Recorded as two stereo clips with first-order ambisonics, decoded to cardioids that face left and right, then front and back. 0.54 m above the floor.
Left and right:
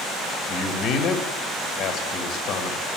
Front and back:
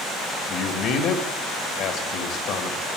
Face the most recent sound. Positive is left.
turn(degrees=50)